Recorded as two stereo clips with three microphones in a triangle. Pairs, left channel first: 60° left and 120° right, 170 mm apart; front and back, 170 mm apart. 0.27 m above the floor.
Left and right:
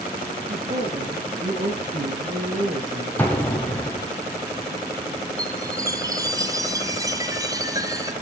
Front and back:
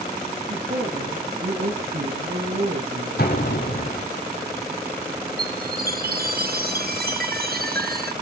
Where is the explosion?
20° right, 5 m.